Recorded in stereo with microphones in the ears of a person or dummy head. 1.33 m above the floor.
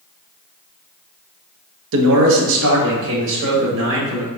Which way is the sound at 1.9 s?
60° right (ahead or behind).